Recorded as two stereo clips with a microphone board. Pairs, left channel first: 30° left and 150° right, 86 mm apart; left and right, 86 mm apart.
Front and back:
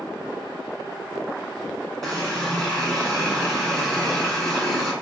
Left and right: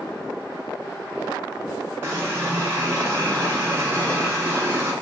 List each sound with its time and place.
2.0 s a running tap: 55° right, 1.1 m